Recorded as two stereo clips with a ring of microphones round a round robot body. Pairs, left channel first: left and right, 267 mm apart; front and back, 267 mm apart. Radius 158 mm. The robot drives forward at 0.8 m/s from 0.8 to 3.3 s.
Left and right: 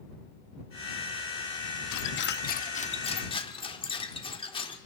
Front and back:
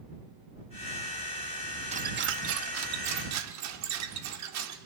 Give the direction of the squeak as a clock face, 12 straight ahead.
8 o'clock.